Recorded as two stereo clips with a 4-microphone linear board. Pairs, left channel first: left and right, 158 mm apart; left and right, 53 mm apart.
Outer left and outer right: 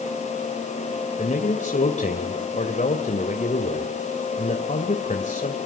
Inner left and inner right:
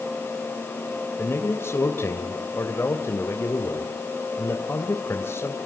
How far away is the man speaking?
About 2.5 m.